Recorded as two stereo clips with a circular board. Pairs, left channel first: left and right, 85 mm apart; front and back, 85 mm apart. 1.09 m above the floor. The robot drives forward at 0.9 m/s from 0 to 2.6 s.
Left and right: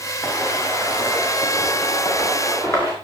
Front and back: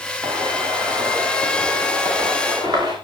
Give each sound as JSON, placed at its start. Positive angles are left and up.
{"t": 0.2, "sound": "footsteps", "azimuth_deg": 140, "distance_m": 8.5}